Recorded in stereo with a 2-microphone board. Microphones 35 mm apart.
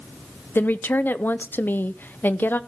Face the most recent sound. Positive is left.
turn(degrees=65)  # may be behind; listen again after turning